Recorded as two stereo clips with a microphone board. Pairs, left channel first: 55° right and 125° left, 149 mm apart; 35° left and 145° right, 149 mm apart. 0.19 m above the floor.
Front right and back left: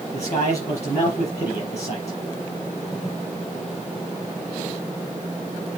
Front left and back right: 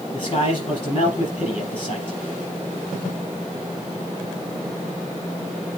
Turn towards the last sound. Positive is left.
turn(degrees=-15)